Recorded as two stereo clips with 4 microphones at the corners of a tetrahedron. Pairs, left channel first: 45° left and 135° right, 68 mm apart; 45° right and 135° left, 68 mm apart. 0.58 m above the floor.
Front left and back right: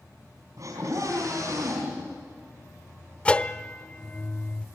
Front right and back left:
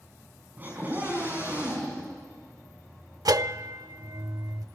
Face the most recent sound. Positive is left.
turn(degrees=120)